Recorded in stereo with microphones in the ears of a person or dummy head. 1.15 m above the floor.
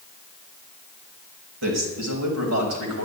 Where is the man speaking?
85° right, 5.5 m; by 3.1 s 90° right, 6 m.